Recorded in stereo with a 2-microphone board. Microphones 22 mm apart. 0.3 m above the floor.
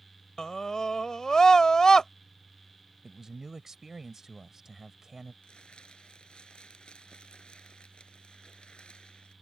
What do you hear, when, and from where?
0.4 s a scream: 25° left (ahead or behind)
3.0 s a man speaking: 20° right (ahead or behind)
5.4 s crumpling: 45° left (ahead or behind)